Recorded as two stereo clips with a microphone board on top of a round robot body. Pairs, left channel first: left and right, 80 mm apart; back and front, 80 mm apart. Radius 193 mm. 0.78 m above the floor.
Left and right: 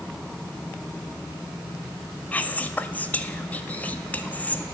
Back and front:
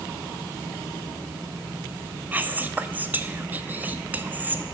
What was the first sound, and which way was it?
Whispering, 40° left.